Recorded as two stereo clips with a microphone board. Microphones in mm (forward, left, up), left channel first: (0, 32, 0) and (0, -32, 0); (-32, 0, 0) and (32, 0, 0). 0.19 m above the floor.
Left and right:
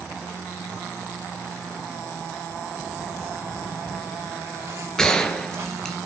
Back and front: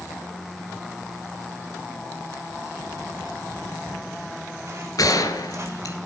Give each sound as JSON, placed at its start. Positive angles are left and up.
{"t": 2.7, "sound": "footsteps", "azimuth_deg": -50, "distance_m": 9.5}
{"t": 5.0, "sound": "a gunshot", "azimuth_deg": 170, "distance_m": 2.5}